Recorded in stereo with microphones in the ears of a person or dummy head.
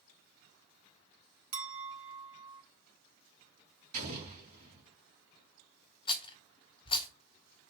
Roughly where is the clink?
Right.